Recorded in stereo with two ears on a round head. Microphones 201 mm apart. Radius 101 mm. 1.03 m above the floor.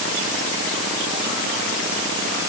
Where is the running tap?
I don't hear a running tap.